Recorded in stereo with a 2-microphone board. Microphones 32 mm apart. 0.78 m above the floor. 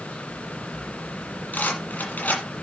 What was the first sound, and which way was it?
A rattle, 60° left (ahead or behind).